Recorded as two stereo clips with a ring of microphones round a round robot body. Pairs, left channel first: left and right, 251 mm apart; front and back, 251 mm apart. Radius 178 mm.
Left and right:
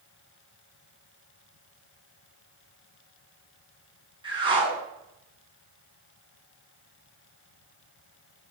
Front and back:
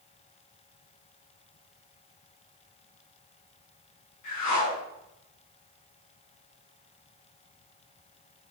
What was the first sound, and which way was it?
A whoosh, 20° right.